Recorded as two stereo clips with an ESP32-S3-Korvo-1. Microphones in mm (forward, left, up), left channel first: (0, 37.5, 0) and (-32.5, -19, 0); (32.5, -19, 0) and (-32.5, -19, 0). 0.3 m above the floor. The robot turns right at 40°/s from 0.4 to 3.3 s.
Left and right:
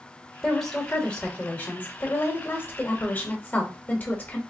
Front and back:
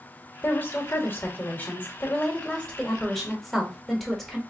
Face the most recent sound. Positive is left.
turn(degrees=90)